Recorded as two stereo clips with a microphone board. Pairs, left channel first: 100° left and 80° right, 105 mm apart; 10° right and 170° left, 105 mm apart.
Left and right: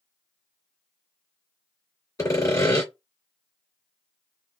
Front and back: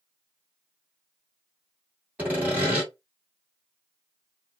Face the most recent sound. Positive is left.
turn(degrees=110)